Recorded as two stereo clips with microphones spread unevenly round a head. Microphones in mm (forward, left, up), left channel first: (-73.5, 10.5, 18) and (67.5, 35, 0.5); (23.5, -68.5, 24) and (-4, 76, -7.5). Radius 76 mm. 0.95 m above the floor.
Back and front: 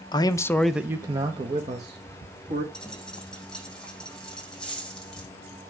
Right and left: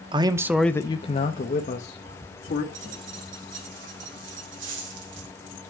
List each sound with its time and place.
0.1 s a man speaking: 130° left, 0.9 m; by 2.6 s 40° right, 2.5 m
2.7 s a dropped coin: 105° left, 6.5 m